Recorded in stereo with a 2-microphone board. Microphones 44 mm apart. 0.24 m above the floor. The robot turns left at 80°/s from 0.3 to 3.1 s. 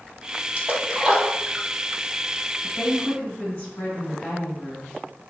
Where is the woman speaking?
100° left, 1.6 m; by 5.0 s 65° left, 1.6 m.